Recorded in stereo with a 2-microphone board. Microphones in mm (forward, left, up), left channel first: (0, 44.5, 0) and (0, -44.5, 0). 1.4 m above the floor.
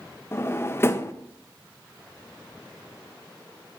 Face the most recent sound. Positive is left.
turn(degrees=25)  # may be behind; listen again after turning